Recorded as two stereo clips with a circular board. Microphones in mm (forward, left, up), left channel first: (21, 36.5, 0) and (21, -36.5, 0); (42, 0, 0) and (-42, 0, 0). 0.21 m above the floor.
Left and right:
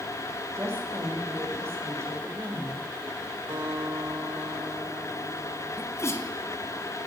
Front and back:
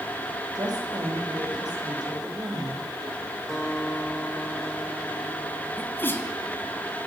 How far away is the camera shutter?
I don't hear a camera shutter.